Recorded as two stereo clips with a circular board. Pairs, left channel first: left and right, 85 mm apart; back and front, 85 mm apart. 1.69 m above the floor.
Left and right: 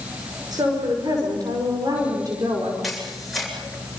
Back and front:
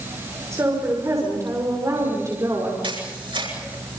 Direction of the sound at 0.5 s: 55° right.